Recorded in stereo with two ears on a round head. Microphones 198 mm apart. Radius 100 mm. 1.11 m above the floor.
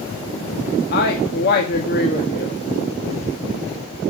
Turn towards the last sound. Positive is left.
turn(degrees=45)  # may be behind; listen again after turning